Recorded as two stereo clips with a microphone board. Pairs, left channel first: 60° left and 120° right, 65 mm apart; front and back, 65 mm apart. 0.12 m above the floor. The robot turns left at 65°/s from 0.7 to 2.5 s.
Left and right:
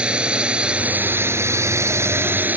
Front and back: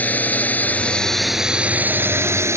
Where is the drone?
55° right; by 2.6 s 170° right.